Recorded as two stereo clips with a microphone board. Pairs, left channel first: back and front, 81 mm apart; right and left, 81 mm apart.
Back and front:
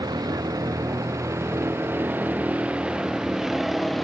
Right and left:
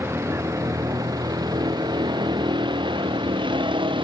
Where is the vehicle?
30° left; by 4.0 s 90° left.